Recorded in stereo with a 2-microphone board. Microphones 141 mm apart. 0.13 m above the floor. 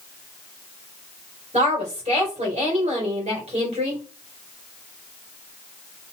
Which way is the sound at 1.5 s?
50° right (ahead or behind).